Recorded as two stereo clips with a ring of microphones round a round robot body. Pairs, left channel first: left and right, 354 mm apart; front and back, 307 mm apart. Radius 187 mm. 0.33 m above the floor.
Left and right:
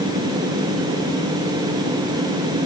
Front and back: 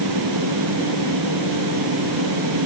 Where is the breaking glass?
I don't hear breaking glass.